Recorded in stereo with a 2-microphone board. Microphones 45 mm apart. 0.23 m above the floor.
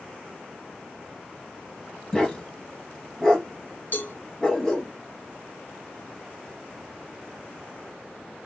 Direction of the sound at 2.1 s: 10° left (ahead or behind).